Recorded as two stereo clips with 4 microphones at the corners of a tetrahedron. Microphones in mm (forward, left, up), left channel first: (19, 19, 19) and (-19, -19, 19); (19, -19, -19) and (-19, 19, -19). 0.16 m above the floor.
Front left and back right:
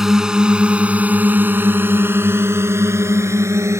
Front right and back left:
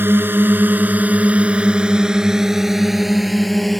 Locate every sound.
0.0 s a drone: 150° left; by 3.8 s 130° right